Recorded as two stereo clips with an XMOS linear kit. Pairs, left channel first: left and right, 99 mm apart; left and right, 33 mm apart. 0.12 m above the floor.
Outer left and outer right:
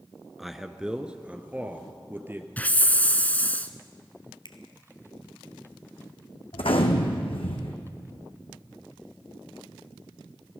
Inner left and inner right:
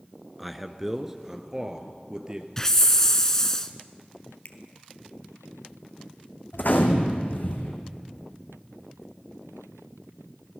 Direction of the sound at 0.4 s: Centre (ahead or behind).